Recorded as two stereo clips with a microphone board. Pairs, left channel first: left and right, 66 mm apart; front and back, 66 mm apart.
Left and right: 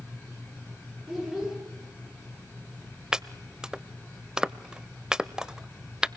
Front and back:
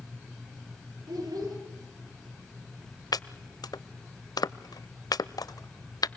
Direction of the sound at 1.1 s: 175° right.